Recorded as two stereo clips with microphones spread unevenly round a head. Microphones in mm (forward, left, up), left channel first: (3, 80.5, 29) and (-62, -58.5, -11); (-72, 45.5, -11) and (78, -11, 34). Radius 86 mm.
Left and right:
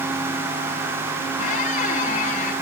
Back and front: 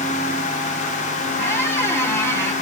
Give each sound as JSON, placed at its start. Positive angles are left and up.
{"t": 1.4, "sound": "a squeak", "azimuth_deg": 75, "distance_m": 1.4}